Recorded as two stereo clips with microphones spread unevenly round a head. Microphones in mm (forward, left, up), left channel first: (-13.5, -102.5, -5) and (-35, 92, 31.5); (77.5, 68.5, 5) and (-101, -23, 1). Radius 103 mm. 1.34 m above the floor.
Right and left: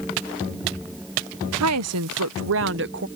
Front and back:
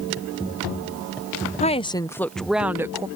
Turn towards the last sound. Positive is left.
turn(degrees=135)